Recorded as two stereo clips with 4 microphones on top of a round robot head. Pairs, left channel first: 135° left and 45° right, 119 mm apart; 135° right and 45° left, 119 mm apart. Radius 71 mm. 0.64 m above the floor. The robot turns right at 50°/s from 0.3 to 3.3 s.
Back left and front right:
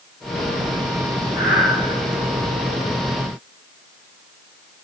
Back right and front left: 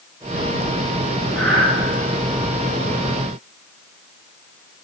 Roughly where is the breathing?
Behind left.